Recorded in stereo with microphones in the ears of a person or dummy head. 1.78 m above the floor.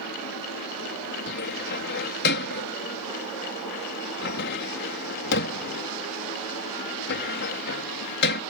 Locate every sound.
1.3 s a cupboard door: 55° left (ahead or behind)